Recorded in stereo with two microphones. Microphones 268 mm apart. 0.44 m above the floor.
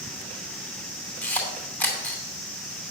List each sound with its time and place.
1.2 s a camera shutter: 5° left (ahead or behind), 2.5 m